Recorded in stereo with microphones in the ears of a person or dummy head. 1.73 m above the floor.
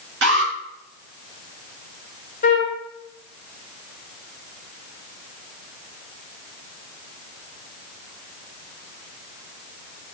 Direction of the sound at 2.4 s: 40° left (ahead or behind).